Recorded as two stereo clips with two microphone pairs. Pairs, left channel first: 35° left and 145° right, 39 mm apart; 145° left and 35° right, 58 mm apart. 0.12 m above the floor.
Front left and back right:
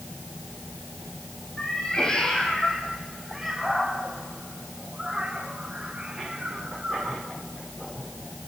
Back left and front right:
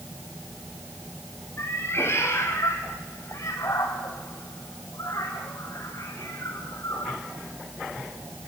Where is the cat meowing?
100° left, 3.5 m; by 7.2 s 150° left, 6 m.